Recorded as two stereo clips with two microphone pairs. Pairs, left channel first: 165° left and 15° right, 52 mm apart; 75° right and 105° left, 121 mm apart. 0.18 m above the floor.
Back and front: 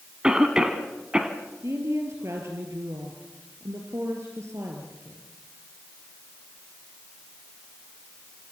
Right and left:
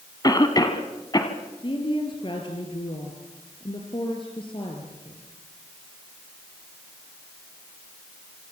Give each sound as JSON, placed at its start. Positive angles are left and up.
{"t": 0.2, "sound": "a cough", "azimuth_deg": -75, "distance_m": 1.6}
{"t": 1.6, "sound": "a woman speaking", "azimuth_deg": -30, "distance_m": 3.5}